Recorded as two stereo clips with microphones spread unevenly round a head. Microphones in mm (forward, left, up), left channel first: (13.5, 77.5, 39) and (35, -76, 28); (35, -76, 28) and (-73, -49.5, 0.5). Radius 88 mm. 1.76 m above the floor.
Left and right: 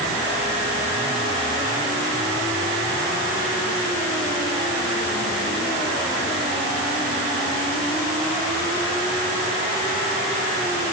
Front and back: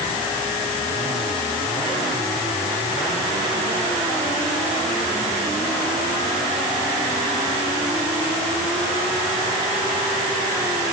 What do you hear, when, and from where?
Only background noise.